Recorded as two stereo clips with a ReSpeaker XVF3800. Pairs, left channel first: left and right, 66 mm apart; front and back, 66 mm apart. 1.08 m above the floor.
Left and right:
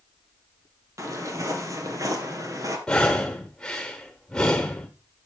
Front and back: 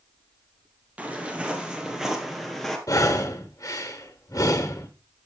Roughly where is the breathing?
Ahead.